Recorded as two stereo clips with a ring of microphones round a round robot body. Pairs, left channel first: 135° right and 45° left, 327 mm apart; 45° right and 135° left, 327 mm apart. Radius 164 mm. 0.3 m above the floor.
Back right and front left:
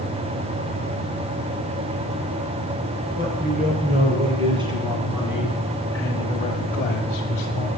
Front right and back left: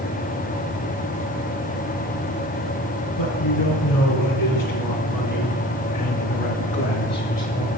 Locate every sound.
3.2 s a man speaking: 20° right, 4 m; by 7.7 s 120° right, 1.7 m